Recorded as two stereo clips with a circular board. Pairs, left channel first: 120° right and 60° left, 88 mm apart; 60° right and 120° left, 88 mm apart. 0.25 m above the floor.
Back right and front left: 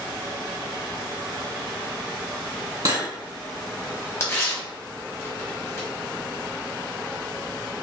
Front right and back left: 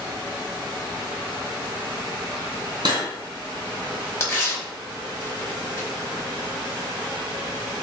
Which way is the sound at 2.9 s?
100° left.